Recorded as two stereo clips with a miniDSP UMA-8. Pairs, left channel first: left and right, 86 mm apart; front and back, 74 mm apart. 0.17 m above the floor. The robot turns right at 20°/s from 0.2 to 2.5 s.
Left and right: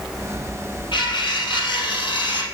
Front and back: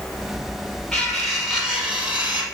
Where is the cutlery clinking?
85° left, 3 m; by 2.4 s 115° left, 3 m.